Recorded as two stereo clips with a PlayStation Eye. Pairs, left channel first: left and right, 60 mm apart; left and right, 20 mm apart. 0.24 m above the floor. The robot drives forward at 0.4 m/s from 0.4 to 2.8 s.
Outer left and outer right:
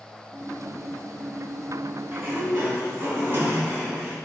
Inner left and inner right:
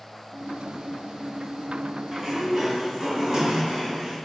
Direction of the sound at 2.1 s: 35° right (ahead or behind).